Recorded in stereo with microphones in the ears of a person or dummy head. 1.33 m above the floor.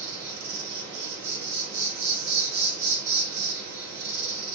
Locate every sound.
0.0 s an insect: 75° right (ahead or behind), 1.2 m